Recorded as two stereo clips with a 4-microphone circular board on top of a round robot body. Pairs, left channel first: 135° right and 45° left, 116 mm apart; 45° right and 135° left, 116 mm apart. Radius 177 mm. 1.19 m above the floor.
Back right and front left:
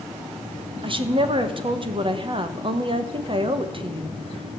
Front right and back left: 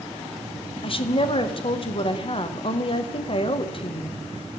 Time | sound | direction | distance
0.8 | a woman speaking | straight ahead | 1.4 m